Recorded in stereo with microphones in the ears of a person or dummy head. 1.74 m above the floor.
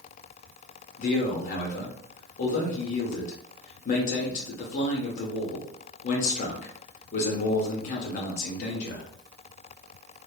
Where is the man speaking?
45° left (ahead or behind), 0.7 m.